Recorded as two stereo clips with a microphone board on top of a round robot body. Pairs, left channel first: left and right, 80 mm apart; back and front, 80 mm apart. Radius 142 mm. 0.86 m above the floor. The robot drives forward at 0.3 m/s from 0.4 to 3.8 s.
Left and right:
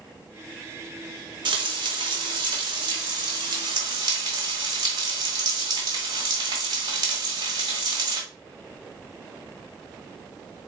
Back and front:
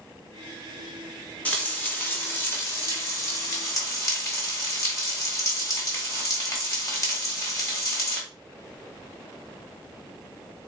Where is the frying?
105° right, 1.4 m; by 8.2 s 130° right, 1.7 m.